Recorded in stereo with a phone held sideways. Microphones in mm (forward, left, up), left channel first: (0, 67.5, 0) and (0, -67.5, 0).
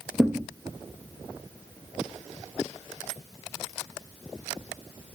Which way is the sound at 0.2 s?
Centre (ahead or behind).